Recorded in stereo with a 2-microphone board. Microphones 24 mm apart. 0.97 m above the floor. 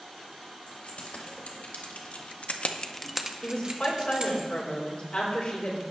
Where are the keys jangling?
70° left (ahead or behind), 3.5 m; by 4.4 s 50° right (ahead or behind), 2.5 m.